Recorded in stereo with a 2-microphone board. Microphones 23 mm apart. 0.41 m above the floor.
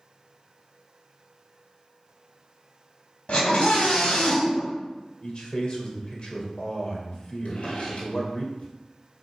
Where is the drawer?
80° left, 2 m.